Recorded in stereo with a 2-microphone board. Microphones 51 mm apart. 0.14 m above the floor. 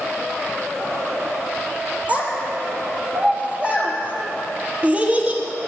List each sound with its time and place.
2.1 s a child speaking: 25° right (ahead or behind), 2 m